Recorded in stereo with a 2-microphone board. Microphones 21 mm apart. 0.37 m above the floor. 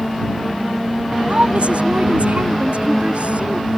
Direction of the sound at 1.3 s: 65° right (ahead or behind).